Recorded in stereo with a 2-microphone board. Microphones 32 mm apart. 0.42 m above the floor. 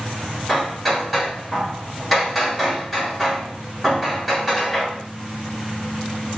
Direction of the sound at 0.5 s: Centre (ahead or behind).